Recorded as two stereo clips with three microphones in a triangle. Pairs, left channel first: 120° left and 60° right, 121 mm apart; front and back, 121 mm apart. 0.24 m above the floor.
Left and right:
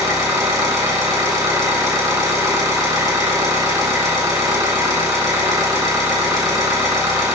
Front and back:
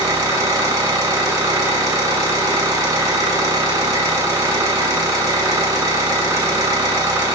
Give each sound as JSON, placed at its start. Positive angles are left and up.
{"t": 0.0, "sound": "an engine running", "azimuth_deg": -120, "distance_m": 2.0}